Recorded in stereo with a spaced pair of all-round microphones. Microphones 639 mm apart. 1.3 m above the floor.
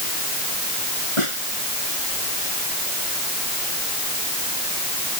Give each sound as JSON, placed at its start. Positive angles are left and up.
{"t": 1.2, "sound": "a snare drum", "side_deg": 50}